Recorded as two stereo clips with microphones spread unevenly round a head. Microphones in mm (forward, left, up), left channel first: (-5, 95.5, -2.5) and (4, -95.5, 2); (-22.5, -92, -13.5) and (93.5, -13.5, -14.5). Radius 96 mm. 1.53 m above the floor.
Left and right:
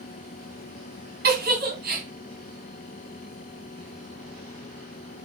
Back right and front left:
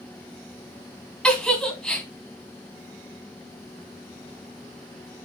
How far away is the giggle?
About 2 m.